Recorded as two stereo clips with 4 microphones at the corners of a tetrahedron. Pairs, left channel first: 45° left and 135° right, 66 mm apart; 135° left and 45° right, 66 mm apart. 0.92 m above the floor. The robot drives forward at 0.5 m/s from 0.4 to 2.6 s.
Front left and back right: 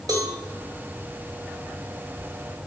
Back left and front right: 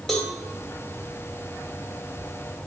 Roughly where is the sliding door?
No sliding door in this recording.